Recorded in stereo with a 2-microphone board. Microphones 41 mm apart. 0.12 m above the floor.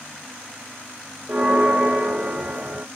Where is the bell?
45° right (ahead or behind), 1.1 m.